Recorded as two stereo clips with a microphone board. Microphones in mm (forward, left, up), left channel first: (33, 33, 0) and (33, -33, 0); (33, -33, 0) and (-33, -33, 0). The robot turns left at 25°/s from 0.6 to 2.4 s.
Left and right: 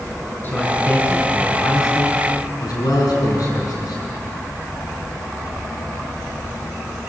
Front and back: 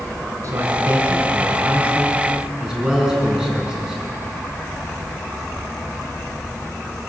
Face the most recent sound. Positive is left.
turn(degrees=105)